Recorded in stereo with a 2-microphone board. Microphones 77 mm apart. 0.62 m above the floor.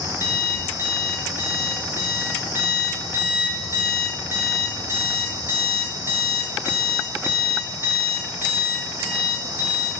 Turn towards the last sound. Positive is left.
turn(degrees=-35)  # may be behind; listen again after turning